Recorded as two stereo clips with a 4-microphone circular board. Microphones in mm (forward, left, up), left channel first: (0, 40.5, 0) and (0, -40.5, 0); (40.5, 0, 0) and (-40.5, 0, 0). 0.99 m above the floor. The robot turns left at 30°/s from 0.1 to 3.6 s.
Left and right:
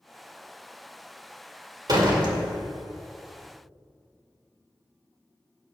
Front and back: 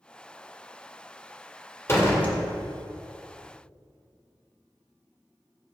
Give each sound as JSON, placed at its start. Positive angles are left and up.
{"t": 1.9, "sound": "a door slam", "azimuth_deg": -55, "distance_m": 2.0}